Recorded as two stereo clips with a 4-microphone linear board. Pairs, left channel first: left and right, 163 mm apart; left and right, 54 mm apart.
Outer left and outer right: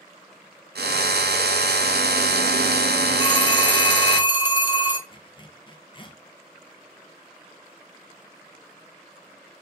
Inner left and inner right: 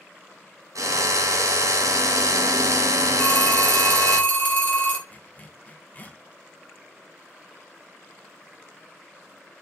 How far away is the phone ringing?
About 1.4 m.